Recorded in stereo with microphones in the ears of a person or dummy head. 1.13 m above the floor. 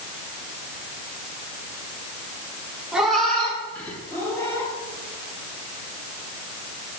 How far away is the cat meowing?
About 1.7 m.